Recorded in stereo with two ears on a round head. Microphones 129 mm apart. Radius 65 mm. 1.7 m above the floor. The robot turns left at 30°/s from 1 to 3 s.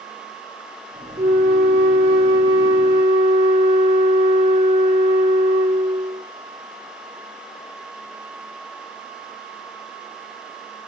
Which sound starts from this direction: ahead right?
A flute, at 1.2 s.